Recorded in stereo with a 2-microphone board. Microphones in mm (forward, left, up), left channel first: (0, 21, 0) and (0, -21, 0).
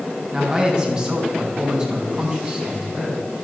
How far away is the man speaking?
About 5 m.